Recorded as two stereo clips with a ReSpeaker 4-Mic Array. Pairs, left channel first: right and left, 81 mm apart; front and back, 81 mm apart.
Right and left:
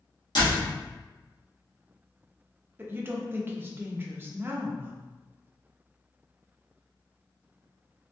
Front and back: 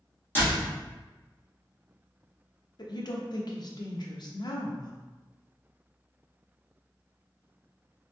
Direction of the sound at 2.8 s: 30° left.